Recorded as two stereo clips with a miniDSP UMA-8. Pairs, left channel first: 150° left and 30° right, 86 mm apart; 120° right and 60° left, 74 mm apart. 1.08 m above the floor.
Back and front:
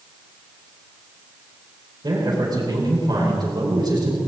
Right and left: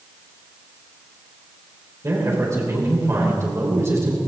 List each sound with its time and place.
2.0 s a man speaking: 10° left, 4.5 m